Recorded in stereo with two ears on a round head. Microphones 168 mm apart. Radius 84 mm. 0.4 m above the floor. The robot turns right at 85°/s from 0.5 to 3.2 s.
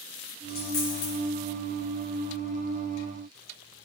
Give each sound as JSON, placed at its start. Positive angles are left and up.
{"t": 0.5, "sound": "a dropped coin", "side_deg": 65, "distance_m": 2.5}